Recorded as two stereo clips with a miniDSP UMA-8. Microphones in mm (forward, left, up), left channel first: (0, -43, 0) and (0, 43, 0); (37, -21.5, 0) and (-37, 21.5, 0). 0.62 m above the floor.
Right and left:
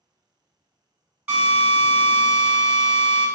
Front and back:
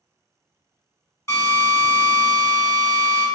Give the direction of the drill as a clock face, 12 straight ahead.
12 o'clock.